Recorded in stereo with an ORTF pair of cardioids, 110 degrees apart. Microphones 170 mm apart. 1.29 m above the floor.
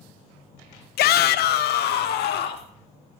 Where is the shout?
65° left, 0.8 m; by 2.7 s 70° left, 3 m.